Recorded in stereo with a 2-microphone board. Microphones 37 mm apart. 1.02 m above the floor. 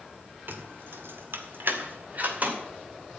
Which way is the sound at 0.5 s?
65° right (ahead or behind).